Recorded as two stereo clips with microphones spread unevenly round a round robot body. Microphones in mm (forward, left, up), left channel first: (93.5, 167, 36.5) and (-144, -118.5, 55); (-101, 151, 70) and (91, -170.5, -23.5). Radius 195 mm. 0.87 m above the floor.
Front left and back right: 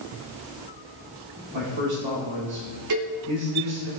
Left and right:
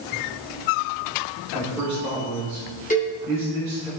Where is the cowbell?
165° right, 3 m.